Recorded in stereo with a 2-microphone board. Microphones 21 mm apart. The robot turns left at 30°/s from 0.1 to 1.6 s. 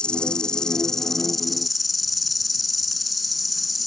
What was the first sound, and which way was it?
An insect, 45° left.